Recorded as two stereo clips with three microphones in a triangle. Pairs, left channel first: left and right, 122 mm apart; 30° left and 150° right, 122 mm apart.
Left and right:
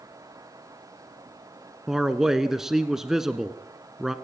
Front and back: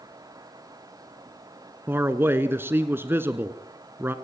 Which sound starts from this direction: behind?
A man speaking, at 1.9 s.